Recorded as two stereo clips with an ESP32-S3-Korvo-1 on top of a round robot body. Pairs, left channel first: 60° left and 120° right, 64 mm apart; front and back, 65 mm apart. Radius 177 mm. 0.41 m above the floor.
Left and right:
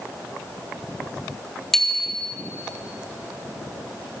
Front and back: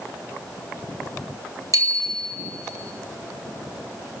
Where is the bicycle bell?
145° left, 2 m.